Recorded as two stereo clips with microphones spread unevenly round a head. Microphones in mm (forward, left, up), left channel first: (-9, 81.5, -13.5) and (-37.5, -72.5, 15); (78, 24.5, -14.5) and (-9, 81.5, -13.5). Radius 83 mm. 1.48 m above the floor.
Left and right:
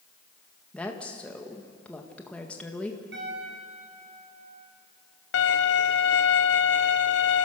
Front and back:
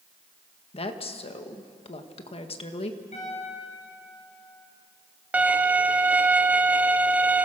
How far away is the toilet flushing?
No toilet flushing in this recording.